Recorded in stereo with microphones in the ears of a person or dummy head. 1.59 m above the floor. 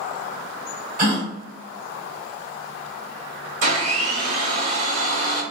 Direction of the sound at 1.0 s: 50° right (ahead or behind).